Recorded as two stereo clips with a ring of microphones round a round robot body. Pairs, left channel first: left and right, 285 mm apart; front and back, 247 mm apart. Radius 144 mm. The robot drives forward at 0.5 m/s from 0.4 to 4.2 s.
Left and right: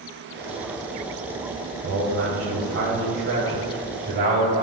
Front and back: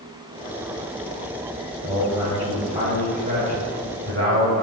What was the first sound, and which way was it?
A man speaking, 105° right.